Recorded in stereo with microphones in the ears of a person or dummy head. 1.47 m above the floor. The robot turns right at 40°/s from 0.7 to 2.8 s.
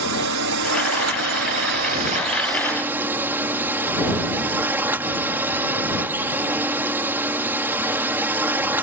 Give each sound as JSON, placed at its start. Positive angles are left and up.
{"t": 0.0, "sound": "a drone", "azimuth_deg": -95}